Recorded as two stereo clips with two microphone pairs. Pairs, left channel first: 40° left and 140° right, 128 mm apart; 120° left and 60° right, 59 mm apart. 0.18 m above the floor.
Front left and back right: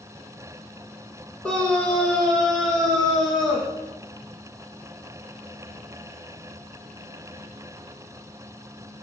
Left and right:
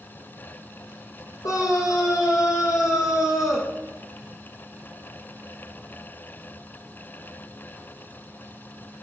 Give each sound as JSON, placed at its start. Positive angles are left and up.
{"t": 1.4, "sound": "a scream", "azimuth_deg": 120, "distance_m": 5.5}